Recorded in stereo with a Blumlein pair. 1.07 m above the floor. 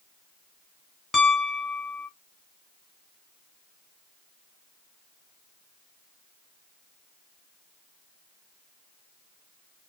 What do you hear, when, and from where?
1.1 s a piano: 15° left, 1.1 m